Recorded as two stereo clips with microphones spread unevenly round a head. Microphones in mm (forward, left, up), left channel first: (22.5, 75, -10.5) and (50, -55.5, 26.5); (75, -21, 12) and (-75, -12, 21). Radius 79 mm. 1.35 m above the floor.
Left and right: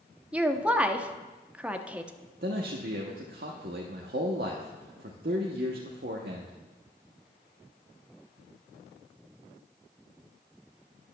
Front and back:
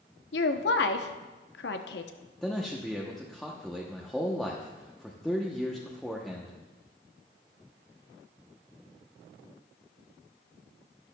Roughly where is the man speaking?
Right.